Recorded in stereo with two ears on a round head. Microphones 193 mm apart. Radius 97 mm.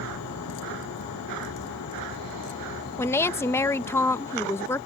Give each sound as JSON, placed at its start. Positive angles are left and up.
{"t": 0.0, "sound": "a vehicle", "side_deg": 90}
{"t": 3.0, "sound": "a woman speaking", "side_deg": 10}